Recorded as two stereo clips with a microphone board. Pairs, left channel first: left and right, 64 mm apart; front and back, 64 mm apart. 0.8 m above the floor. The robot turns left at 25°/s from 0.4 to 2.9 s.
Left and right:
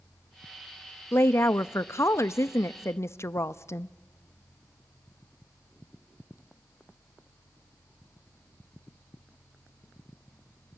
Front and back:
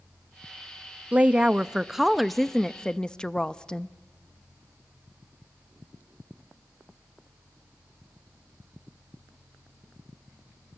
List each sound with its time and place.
1.1 s a woman speaking: 120° left, 0.6 m; by 3.9 s 75° left, 0.6 m